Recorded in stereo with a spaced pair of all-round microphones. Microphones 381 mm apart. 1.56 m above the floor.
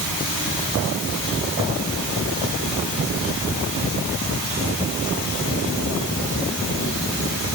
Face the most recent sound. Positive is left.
No sound to turn to.